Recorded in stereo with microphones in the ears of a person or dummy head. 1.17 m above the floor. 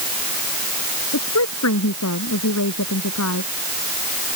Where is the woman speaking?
90° left.